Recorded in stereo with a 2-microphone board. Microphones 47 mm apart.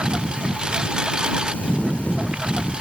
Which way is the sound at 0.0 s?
20° right (ahead or behind).